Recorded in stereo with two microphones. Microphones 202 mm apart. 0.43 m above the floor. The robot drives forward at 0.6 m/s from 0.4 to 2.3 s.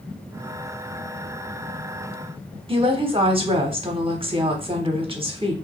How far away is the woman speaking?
About 1.0 m.